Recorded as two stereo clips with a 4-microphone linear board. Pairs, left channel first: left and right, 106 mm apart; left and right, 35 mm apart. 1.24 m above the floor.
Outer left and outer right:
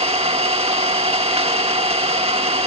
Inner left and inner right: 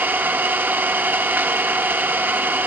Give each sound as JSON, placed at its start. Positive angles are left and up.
{"t": 0.0, "sound": "an engine running", "side_deg": -70, "distance_m": 1.3}